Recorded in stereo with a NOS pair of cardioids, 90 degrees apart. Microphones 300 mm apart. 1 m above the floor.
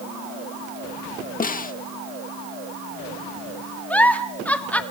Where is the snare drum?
30° left, 1.1 m.